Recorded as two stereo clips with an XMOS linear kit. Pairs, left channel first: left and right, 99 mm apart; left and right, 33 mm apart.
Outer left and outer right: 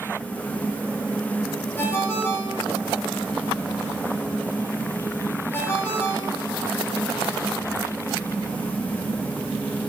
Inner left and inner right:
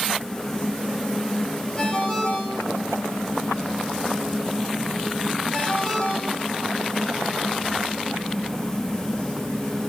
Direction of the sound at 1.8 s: 25° left (ahead or behind).